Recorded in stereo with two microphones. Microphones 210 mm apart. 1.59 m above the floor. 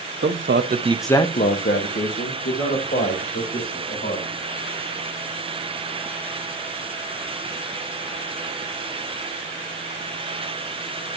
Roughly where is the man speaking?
Right.